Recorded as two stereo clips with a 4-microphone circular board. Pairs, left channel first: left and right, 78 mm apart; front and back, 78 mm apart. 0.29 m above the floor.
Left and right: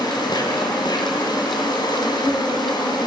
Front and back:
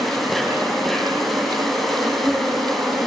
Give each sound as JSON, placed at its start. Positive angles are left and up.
{"t": 0.0, "sound": "an insect", "azimuth_deg": 90, "distance_m": 3.0}